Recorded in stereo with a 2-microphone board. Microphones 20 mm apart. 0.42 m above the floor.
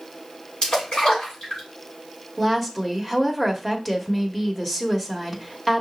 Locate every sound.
0.6 s a splash: 55° left (ahead or behind), 3 m
2.4 s a woman speaking: centre (ahead or behind), 1.1 m